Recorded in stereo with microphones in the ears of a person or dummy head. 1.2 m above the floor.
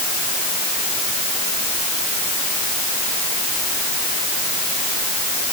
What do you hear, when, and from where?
Only background noise.